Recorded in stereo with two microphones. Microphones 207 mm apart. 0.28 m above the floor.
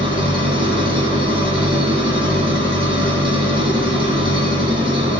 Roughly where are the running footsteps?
I don't hear running footsteps.